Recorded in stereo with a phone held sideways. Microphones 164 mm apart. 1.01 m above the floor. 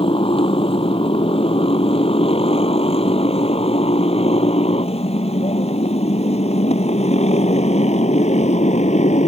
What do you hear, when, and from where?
0.0 s a motorcycle: 35° left (ahead or behind); by 9.3 s 45° left (ahead or behind)